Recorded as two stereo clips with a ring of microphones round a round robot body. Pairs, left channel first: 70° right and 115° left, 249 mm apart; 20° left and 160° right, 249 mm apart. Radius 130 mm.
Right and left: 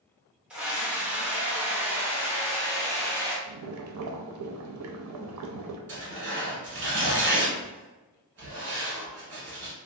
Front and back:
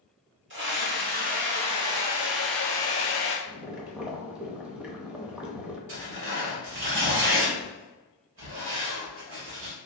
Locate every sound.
0.5 s a scream: 165° right, 1.4 m; by 3.4 s 40° left, 1.1 m
3.5 s boiling: 115° left, 0.6 m
5.9 s tearing paper: 160° left, 1.7 m